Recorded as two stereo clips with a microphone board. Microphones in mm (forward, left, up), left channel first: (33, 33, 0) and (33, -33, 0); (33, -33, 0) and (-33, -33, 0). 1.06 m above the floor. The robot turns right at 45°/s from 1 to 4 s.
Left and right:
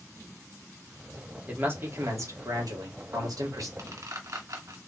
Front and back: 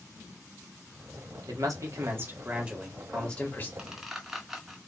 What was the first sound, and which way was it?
A man speaking, 155° right.